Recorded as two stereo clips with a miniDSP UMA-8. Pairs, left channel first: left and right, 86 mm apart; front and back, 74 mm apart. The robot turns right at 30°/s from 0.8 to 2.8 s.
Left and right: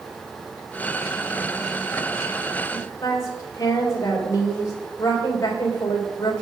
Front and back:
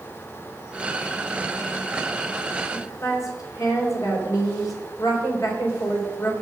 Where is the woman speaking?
40° left, 3.5 m.